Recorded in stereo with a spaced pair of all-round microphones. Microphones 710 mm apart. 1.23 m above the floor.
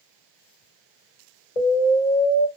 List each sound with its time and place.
1.6 s an explosion: 80° left, 1.6 m